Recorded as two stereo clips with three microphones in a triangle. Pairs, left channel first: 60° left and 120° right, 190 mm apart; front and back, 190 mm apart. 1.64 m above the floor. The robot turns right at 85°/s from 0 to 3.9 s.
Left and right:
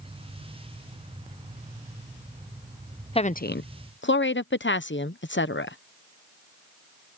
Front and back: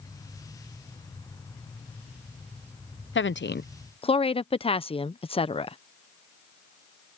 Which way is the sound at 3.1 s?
Straight ahead.